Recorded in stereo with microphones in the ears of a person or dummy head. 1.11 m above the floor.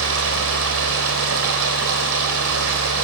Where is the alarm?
I don't hear an alarm.